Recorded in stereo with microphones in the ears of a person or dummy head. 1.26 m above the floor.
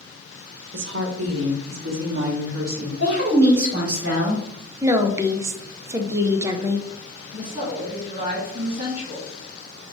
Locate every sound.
0.7 s a woman speaking: 80° right, 1.1 m; by 2.9 s 50° right (ahead or behind), 1.6 m
3.0 s a woman speaking: 65° right (ahead or behind), 2.5 m
4.8 s a woman speaking: 15° right (ahead or behind), 0.6 m
7.3 s a woman speaking: 40° right (ahead or behind), 2 m